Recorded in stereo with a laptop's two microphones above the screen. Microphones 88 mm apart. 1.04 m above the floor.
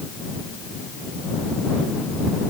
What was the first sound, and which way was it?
Only background noise.